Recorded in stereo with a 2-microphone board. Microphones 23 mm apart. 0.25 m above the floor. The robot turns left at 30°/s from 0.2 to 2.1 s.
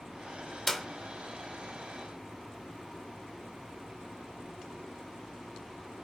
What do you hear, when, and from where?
0.7 s a clap: 10° left (ahead or behind), 1.4 m